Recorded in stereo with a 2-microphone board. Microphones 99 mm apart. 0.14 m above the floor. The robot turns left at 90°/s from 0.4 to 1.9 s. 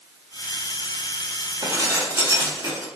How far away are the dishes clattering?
About 1.1 m.